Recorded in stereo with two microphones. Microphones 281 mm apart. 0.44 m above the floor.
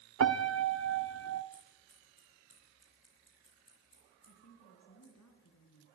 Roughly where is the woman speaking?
Left.